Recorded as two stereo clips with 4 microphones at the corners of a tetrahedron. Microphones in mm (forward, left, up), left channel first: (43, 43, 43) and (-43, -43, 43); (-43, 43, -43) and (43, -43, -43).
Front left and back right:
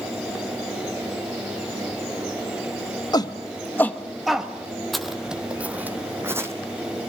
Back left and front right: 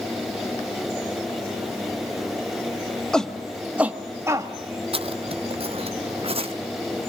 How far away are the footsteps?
About 1.1 m.